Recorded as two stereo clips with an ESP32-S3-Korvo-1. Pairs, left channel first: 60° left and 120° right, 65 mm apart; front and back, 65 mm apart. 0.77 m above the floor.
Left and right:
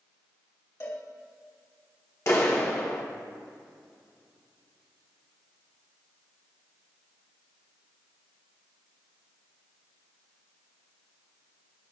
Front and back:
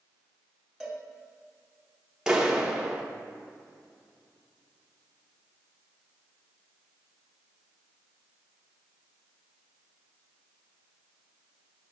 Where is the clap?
100° left, 1.4 m.